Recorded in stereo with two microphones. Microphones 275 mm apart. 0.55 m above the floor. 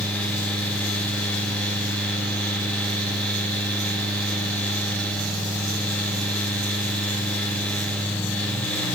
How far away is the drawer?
I don't hear a drawer.